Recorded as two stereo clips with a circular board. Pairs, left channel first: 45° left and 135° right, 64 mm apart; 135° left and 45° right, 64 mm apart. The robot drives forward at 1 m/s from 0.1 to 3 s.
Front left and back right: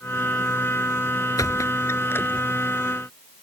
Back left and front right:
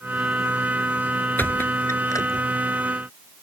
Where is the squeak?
75° left; by 2.5 s 110° left.